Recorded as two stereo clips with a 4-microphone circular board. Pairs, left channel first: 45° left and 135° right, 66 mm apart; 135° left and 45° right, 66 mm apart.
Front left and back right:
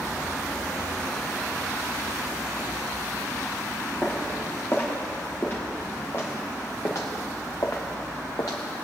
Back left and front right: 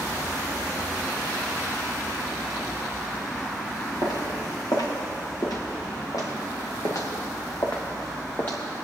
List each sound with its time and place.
4.0 s footsteps: 115° left, 3.5 m; by 8.6 s 70° left, 1.5 m